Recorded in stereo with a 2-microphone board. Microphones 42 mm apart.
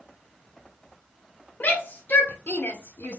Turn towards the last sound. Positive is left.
turn(degrees=50)  # may be behind; listen again after turning